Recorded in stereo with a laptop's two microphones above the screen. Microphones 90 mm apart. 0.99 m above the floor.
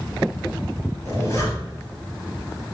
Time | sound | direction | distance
1.1 | a zipper | 35° left (ahead or behind) | 1.0 m